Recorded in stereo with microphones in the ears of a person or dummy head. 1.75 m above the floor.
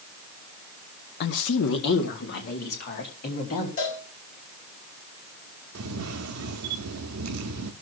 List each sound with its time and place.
1.2 s a woman speaking: 55° left (ahead or behind), 0.9 m; by 3.7 s 50° left (ahead or behind), 3.5 m
3.8 s a cowbell: 40° left (ahead or behind), 5 m
5.8 s a camera shutter: 85° right, 0.6 m